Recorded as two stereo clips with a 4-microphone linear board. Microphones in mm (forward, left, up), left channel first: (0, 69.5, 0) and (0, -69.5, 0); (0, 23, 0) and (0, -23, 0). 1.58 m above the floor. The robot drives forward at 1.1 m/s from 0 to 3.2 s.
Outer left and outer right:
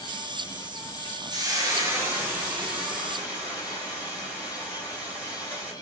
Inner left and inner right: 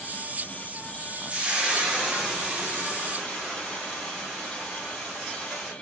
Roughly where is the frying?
Right.